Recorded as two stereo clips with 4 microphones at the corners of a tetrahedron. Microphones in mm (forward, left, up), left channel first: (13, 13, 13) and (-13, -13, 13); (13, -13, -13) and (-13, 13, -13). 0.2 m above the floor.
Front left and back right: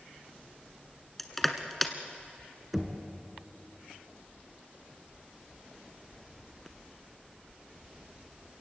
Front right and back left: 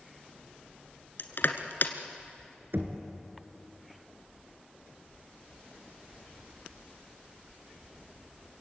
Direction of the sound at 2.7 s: 140° left.